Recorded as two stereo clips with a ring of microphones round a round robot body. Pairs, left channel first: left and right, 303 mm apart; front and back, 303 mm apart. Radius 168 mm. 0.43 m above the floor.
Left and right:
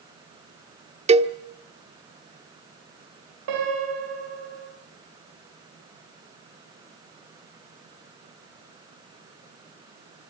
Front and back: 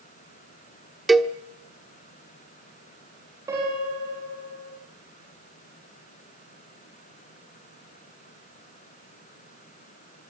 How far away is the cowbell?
About 1.0 m.